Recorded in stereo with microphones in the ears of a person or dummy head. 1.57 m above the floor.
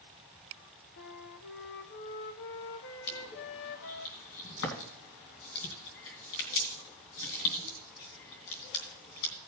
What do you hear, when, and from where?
1.0 s a flute: 65° left (ahead or behind), 0.9 m
3.1 s crushing: 60° left (ahead or behind), 3 m